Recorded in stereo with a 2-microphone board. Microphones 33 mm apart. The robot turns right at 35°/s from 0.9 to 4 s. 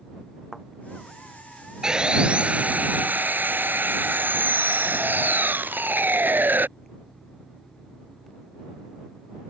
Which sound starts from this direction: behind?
Sawing, at 1.8 s.